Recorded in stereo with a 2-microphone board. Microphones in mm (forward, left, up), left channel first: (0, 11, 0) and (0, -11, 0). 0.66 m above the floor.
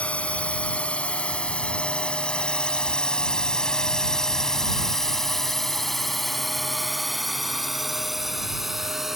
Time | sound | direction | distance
0.0 | a drone | 60° left (ahead or behind) | ?